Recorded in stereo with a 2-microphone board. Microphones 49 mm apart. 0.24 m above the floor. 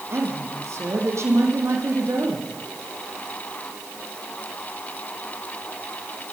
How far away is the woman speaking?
About 10 m.